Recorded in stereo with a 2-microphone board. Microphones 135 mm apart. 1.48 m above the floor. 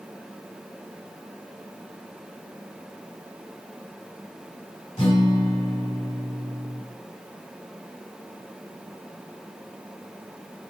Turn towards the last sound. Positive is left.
turn(degrees=55)  # may be behind; listen again after turning